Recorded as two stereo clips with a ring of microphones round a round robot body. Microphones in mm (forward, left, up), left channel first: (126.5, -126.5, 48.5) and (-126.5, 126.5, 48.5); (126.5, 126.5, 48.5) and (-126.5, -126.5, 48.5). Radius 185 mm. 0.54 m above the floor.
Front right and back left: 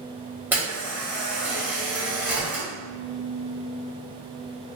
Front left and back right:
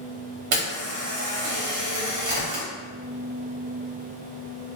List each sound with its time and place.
0.5 s a camera shutter: 140° right, 1.4 m